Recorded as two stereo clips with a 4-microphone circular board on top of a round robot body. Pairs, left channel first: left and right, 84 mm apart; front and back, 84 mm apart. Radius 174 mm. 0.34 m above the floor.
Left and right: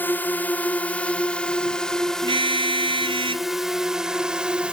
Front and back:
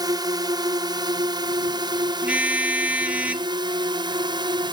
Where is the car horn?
105° right.